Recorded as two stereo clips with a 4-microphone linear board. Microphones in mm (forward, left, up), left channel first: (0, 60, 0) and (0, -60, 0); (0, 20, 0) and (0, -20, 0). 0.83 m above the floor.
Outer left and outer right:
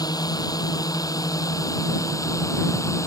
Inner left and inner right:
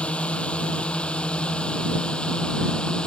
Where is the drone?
30° left (ahead or behind); by 3.1 s 25° left (ahead or behind).